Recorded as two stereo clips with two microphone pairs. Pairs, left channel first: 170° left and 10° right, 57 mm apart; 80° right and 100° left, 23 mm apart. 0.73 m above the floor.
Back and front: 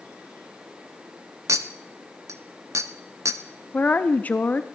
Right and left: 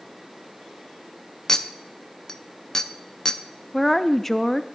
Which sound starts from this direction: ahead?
A clink, at 1.5 s.